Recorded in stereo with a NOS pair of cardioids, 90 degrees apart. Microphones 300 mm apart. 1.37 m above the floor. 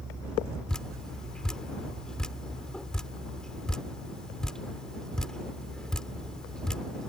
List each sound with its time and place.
0.7 s dripping: straight ahead